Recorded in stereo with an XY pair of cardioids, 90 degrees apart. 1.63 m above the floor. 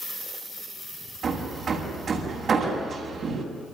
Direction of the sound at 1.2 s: 55° right.